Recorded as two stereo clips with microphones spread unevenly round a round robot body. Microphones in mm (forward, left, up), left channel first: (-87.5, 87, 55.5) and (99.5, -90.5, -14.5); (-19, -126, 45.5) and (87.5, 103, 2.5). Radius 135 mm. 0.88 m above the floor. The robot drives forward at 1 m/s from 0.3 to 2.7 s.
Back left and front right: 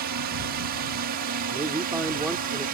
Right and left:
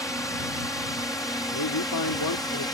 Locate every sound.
0.0 s a drone: 30° right; by 2.8 s 35° right
1.5 s a man speaking: 120° right; by 2.6 s 140° right